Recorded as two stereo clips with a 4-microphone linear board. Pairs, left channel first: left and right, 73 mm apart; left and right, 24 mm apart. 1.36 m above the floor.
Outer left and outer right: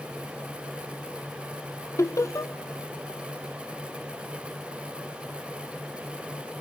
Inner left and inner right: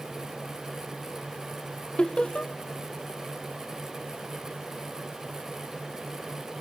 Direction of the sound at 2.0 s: 40° left (ahead or behind).